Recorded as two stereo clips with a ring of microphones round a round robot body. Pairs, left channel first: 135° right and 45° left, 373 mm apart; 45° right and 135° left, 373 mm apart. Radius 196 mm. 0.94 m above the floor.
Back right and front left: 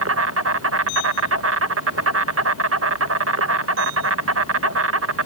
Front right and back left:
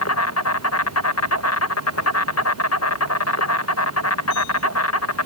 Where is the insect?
Straight ahead.